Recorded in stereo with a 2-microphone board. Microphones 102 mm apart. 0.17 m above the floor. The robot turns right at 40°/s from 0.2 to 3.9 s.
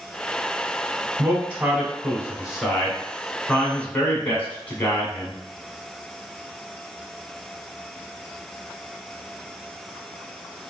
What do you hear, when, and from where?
1.2 s a man speaking: 20° right (ahead or behind), 1.0 m; by 5.4 s 15° left (ahead or behind), 1.0 m